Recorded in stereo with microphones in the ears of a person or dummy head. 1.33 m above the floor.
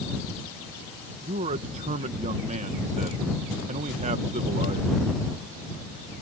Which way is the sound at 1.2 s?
35° right (ahead or behind).